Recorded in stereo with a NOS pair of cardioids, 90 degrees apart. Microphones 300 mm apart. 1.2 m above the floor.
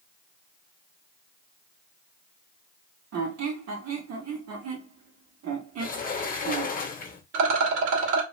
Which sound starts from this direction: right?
A rattle, at 7.3 s.